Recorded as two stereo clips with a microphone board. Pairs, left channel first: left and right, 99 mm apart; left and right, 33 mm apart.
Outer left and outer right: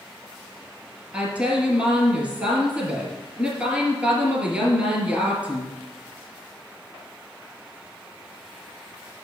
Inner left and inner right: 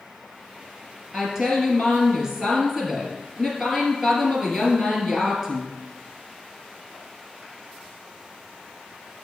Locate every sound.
1.1 s a woman speaking: 15° right (ahead or behind), 2 m